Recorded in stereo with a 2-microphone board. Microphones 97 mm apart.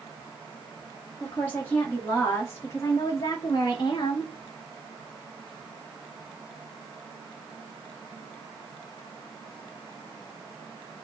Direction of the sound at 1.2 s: 20° left (ahead or behind).